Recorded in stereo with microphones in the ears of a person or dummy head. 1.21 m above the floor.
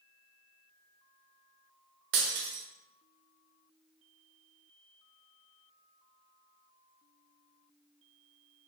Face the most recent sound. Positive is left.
turn(degrees=-65)  # may be behind; listen again after turning